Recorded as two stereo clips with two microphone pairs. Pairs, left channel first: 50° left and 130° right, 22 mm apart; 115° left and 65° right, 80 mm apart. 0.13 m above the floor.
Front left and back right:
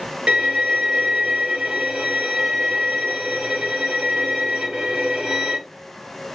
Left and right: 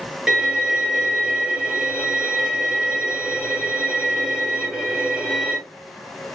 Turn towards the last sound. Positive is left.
turn(degrees=-140)